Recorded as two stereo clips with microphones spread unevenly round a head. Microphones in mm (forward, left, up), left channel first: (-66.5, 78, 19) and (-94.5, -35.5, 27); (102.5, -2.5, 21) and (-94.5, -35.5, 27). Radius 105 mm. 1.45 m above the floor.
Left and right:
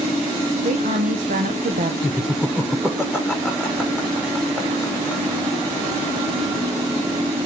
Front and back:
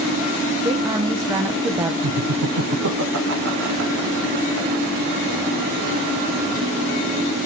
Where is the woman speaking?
95° right, 0.9 m.